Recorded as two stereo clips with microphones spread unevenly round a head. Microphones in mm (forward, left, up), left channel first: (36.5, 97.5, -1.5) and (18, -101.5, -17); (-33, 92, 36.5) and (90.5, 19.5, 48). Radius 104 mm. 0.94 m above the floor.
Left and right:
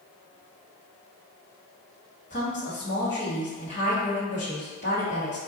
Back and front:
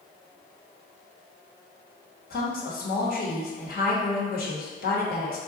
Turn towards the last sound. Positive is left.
turn(degrees=145)